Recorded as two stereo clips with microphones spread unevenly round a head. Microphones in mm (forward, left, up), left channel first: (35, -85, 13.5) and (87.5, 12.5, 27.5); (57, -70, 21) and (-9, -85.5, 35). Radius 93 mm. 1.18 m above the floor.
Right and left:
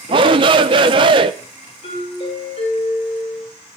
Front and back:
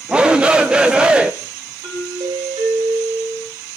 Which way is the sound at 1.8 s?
160° right.